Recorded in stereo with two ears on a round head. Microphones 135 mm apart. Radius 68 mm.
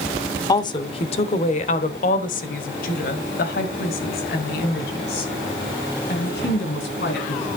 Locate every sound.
0.5 s a woman speaking: 25° left (ahead or behind), 0.9 m; by 7.4 s 80° left, 4 m